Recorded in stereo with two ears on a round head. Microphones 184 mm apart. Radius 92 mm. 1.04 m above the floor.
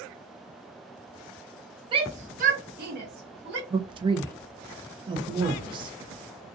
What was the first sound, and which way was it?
A shout, 25° right (ahead or behind).